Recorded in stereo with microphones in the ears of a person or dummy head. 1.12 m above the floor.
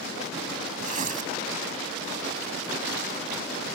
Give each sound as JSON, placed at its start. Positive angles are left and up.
{"t": 0.8, "sound": "tearing paper", "side_deg": -40}